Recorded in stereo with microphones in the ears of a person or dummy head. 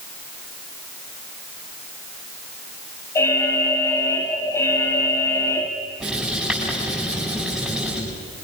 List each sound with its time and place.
3.1 s an alarm: 20° left (ahead or behind), 2 m
6.0 s writing: 5° left (ahead or behind), 7.5 m